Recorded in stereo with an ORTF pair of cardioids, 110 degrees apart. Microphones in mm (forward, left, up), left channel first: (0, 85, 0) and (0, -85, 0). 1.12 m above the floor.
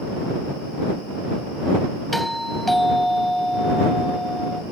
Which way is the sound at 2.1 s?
Straight ahead.